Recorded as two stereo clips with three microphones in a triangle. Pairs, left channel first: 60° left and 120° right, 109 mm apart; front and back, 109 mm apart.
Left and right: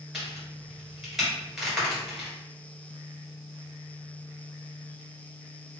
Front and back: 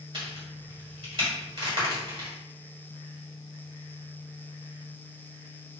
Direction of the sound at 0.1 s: 155° left.